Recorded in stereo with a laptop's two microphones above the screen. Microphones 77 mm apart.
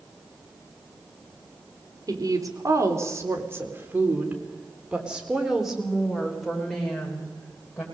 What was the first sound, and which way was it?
A woman speaking, 50° right (ahead or behind).